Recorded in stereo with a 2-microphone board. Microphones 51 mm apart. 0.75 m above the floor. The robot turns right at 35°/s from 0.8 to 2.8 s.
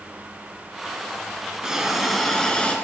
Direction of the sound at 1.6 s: 15° right.